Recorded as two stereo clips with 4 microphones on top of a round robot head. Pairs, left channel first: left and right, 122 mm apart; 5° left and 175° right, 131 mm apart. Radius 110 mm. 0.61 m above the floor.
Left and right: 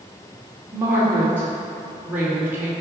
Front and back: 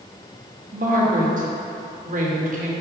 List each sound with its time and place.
0.7 s a woman speaking: 165° right, 2.5 m